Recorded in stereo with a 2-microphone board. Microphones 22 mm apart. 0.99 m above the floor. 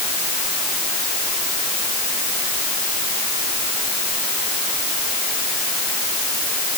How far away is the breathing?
No breathing in this recording.